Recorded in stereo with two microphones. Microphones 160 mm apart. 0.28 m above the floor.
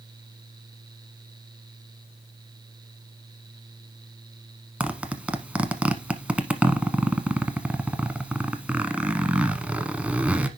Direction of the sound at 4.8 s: 10° right (ahead or behind).